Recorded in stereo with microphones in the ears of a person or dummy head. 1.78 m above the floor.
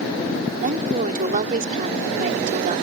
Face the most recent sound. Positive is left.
turn(degrees=-40)  # may be behind; listen again after turning